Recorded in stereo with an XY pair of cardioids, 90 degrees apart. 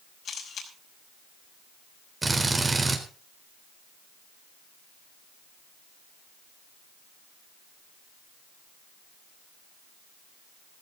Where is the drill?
25° right, 4 m.